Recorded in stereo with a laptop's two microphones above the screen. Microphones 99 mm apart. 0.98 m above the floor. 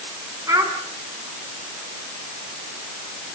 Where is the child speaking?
35° right (ahead or behind), 5.5 m.